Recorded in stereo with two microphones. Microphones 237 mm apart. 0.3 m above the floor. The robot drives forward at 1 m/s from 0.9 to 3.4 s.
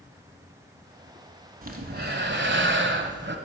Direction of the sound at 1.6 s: 40° right (ahead or behind).